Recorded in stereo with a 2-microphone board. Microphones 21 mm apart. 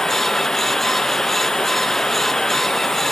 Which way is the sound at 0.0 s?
25° left (ahead or behind).